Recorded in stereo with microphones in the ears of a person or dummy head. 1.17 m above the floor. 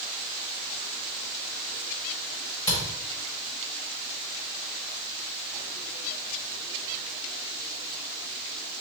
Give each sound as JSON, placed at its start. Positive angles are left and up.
{"t": 2.7, "sound": "a camera shutter", "side_deg": 20, "distance_m": 1.6}